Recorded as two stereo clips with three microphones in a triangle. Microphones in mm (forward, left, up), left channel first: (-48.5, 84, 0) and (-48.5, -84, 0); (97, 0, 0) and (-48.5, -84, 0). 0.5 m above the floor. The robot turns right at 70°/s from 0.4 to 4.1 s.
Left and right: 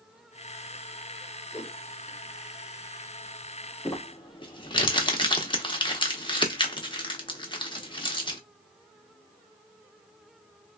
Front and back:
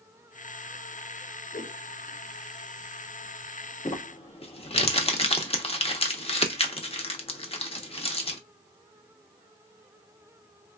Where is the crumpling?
35° left, 0.7 m; by 8.4 s 50° left, 0.7 m.